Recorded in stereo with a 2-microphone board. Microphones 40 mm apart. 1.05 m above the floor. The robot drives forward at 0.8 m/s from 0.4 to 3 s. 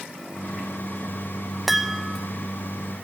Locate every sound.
1.7 s a chime: 5° right (ahead or behind), 0.6 m; by 2.3 s centre (ahead or behind), 1.0 m